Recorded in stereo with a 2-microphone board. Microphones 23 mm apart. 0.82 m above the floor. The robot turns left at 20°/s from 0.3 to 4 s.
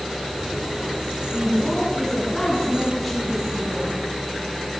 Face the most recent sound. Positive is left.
turn(degrees=-20)